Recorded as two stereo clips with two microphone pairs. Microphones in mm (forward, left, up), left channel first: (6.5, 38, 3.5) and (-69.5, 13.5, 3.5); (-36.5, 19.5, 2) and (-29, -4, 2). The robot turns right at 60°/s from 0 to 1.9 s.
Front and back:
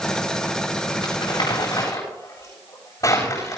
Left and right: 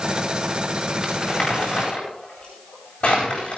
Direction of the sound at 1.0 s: 10° left.